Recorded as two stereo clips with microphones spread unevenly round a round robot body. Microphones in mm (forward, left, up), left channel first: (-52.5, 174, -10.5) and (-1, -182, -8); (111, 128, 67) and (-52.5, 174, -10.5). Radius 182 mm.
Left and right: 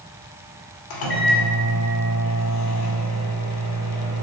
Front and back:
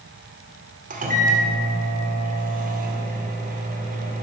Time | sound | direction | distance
0.9 | a microwave | 130° left | 2 m